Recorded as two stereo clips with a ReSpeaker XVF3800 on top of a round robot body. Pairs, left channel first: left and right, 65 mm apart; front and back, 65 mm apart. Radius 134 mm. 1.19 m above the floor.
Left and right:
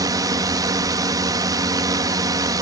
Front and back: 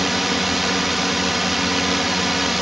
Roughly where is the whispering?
I don't hear whispering.